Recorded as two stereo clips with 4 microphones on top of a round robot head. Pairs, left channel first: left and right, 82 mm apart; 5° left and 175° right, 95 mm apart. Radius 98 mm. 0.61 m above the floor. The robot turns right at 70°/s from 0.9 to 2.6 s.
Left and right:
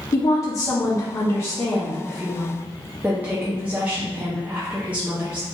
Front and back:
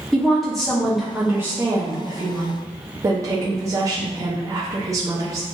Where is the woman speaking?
90° left, 0.8 m; by 5.5 s 150° right, 0.8 m.